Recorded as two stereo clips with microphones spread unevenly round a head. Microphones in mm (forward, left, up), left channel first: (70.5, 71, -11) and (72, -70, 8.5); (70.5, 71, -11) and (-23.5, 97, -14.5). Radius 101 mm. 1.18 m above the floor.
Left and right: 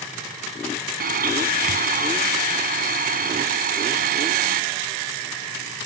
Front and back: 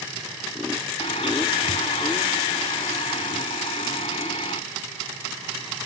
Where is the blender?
80° right.